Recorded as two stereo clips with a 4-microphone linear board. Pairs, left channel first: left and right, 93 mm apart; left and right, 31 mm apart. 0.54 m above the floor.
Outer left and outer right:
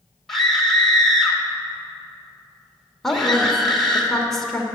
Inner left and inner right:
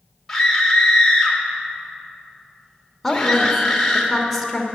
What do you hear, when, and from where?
0.3 s a scream: 5° left (ahead or behind), 2 m
3.0 s a woman speaking: 5° left (ahead or behind), 1.7 m